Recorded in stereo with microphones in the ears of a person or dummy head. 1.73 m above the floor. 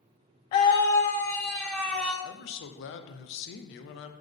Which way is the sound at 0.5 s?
20° left (ahead or behind).